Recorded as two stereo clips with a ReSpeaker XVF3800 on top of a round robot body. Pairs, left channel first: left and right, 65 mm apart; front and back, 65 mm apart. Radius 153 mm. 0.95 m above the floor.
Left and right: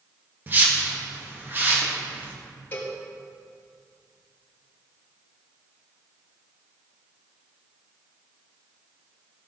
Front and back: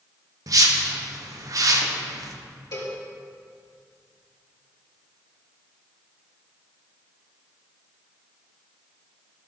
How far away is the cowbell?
About 3.5 m.